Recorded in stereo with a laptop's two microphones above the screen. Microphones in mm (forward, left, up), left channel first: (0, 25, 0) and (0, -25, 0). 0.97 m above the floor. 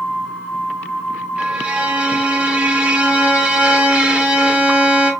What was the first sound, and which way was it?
A violin, 25° right (ahead or behind).